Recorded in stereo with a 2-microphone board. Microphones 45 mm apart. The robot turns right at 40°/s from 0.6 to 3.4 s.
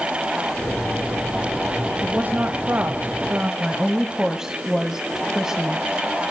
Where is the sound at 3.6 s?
10° right (ahead or behind), 1.6 m.